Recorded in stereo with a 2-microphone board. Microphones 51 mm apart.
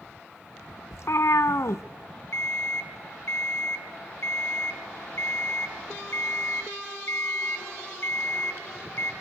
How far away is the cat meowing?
About 0.7 m.